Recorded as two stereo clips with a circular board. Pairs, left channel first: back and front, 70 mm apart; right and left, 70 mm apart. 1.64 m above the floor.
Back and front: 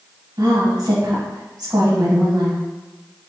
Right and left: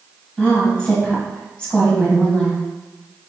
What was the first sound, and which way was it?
A woman speaking, 10° right.